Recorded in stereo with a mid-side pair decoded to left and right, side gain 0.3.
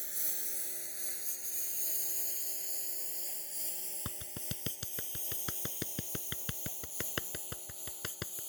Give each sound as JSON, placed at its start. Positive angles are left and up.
{"t": 0.0, "sound": "a lawn mower", "azimuth_deg": -10}
{"t": 4.0, "sound": "a clap", "azimuth_deg": 60}